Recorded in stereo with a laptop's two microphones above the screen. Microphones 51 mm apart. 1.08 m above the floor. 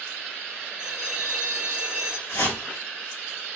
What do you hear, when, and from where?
0.8 s a bell: 20° right (ahead or behind), 0.9 m
2.3 s a whoosh: 70° left (ahead or behind), 2 m